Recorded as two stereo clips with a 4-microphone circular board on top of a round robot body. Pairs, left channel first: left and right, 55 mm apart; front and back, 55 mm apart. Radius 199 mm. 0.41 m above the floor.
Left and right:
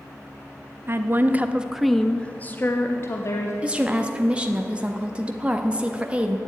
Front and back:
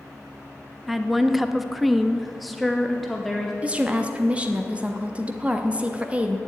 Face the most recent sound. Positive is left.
turn(degrees=-135)